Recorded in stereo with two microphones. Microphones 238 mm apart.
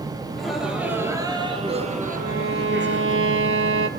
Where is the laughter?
5° left (ahead or behind), 3 m; by 3.2 s 50° right (ahead or behind), 3 m.